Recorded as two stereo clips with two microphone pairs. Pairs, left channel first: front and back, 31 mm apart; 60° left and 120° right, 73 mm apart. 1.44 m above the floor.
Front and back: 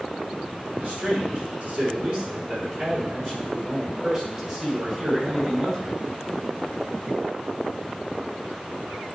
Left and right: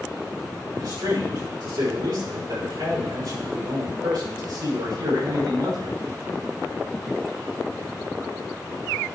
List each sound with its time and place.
0.8 s a man speaking: 140° right, 5 m; by 6.0 s 105° right, 6 m